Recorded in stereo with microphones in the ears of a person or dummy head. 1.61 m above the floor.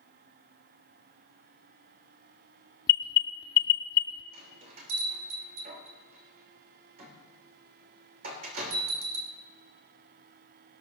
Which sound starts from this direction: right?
A bell, at 4.3 s.